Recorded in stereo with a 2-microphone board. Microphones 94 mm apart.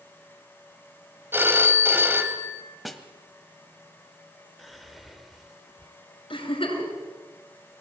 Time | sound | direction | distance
1.3 | a phone ringing | 20° right (ahead or behind) | 1.8 m
2.9 | a snare drum | centre (ahead or behind) | 1.5 m
4.6 | whispering | centre (ahead or behind) | 1.3 m
6.3 | a giggle | 75° left (ahead or behind) | 5 m